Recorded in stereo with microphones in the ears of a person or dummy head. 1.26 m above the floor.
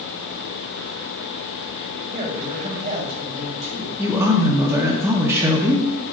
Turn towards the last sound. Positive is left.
turn(degrees=-15)  # may be behind; listen again after turning